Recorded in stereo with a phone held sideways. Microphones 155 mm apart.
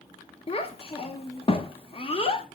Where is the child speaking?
40° left (ahead or behind), 0.6 m.